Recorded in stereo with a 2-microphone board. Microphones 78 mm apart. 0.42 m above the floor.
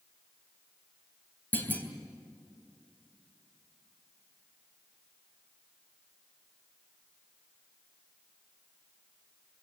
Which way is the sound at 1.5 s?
25° left (ahead or behind).